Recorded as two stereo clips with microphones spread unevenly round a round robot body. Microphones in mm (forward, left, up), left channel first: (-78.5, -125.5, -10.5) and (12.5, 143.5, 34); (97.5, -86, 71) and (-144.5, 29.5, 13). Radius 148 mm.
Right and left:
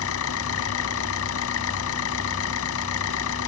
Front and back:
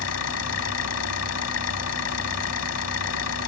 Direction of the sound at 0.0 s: 60° right.